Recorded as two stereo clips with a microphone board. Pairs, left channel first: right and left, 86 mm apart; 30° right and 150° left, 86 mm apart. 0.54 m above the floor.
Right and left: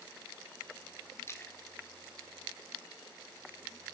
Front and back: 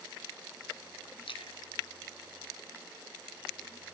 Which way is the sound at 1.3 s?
30° right.